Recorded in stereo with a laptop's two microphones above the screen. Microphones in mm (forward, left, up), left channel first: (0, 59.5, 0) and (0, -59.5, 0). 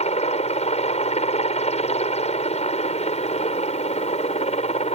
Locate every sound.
0.0 s a helicopter: 70° left (ahead or behind)